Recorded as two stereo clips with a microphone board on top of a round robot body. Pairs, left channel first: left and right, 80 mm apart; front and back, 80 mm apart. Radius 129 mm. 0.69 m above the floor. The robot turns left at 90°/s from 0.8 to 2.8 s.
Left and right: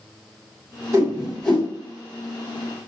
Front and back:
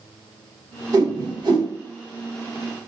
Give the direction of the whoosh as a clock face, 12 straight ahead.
5 o'clock.